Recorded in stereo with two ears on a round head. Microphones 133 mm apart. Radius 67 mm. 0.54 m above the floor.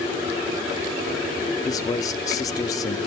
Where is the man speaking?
25° left (ahead or behind), 0.9 m.